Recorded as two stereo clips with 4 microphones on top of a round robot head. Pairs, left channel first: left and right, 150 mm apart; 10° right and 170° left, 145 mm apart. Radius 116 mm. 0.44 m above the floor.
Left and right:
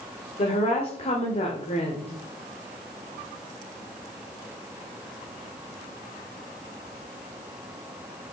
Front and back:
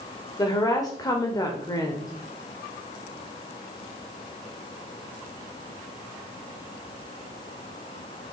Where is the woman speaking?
50° left, 1.6 m.